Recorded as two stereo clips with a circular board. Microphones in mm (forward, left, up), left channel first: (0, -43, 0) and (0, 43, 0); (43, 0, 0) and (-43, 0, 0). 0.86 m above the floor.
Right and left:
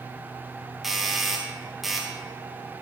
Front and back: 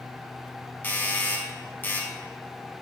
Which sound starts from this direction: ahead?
A doorbell, at 0.8 s.